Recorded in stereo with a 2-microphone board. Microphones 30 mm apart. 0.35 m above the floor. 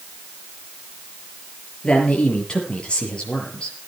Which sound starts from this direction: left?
A man speaking, at 1.8 s.